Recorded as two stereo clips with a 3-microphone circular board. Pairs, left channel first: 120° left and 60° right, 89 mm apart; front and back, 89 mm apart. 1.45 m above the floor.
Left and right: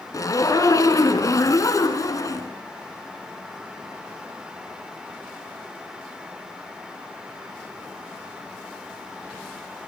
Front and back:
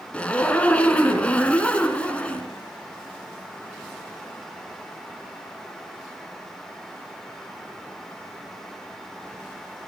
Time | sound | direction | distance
0.1 | a zipper | 75° left | 3 m